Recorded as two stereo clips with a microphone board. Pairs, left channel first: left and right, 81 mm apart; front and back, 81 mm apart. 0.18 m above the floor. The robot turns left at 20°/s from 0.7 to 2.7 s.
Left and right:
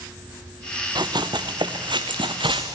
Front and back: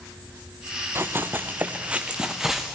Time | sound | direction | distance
0.9 | running footsteps | 120° right | 1.2 m